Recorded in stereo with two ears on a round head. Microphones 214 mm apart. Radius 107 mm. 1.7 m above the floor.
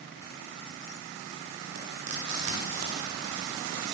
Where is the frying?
75° right (ahead or behind), 9.5 m.